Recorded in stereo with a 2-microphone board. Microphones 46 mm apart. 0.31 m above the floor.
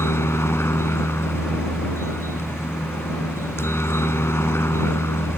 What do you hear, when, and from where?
0.0 s a helicopter: 65° left (ahead or behind)